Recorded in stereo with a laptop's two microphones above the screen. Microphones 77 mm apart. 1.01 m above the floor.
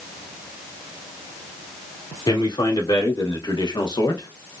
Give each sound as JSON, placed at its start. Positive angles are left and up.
{"t": 2.3, "sound": "a man speaking", "side_deg": 75, "distance_m": 2.0}